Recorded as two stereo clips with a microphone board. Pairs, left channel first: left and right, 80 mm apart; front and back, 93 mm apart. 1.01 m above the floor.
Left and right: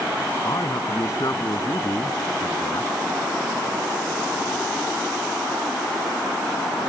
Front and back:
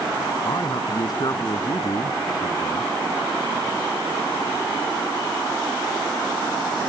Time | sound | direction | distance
0.5 | a man speaking | 40° left | ?